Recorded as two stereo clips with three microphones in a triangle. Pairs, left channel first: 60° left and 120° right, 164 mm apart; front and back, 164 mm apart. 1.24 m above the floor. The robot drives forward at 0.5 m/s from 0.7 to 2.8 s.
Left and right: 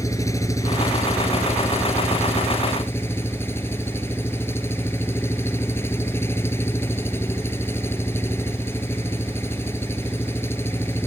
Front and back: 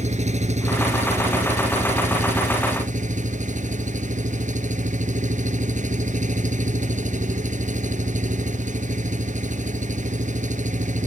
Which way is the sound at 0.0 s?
130° left.